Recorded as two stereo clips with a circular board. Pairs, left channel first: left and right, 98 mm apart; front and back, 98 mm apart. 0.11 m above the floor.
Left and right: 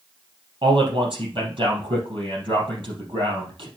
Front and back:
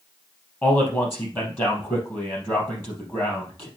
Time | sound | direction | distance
0.6 | a man speaking | 65° right | 3.5 m